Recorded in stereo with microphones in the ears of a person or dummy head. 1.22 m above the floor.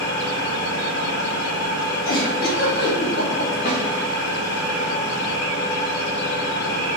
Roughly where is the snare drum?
Left.